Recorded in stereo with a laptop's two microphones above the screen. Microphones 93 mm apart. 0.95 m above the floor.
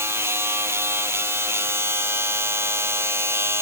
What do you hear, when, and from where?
0.0 s a machine running: 30° right (ahead or behind)